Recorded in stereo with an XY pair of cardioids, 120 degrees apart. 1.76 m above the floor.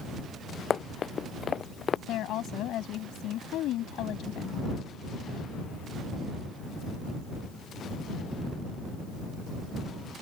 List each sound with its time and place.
0.7 s running footsteps: 40° left
2.1 s a woman speaking: 70° left